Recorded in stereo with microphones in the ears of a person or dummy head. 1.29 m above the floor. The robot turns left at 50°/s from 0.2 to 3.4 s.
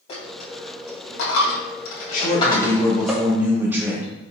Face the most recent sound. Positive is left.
turn(degrees=-15)